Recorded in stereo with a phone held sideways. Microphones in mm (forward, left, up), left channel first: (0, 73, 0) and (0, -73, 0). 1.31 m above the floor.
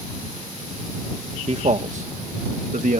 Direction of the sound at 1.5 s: 45° right (ahead or behind).